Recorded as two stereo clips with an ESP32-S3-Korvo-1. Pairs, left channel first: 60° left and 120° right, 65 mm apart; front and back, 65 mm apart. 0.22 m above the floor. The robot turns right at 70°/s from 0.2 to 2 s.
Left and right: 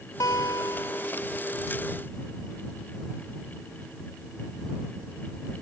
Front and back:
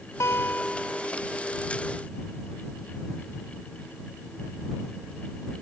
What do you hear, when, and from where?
0.2 s a guitar: 40° left; by 1.1 s 105° left